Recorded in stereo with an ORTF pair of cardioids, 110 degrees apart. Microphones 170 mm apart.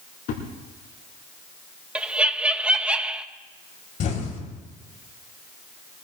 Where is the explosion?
55° left, 3.5 m.